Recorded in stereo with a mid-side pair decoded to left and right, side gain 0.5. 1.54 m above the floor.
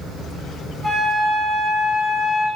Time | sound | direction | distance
0.8 | a flute | 40° right | 1.3 m